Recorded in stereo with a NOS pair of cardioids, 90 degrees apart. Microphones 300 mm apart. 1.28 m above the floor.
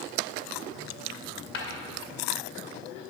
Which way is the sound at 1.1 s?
45° left.